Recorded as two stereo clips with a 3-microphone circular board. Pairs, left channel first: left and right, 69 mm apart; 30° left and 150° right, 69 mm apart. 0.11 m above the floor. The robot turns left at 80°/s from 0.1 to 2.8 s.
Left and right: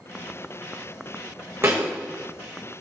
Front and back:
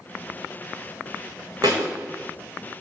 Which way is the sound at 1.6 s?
135° right.